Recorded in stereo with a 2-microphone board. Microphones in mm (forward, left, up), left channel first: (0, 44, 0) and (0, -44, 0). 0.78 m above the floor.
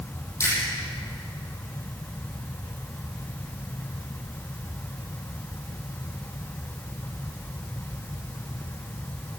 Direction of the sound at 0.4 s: 30° left (ahead or behind).